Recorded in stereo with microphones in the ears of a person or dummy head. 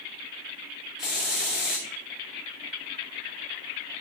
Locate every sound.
1.0 s a hiss: centre (ahead or behind), 1.1 m